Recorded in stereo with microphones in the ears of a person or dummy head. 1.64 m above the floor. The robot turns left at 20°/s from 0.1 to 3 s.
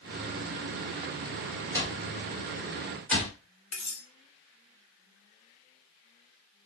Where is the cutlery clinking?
5° left (ahead or behind), 1.0 m.